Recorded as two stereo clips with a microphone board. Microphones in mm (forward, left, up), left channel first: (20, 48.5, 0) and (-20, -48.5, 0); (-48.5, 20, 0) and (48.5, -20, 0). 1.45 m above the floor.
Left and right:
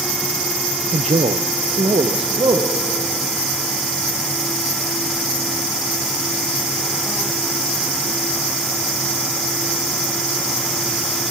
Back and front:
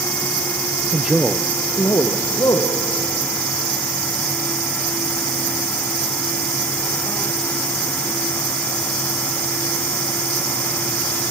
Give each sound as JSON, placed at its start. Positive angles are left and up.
{"t": 0.9, "sound": "a man speaking", "azimuth_deg": -95, "distance_m": 0.5}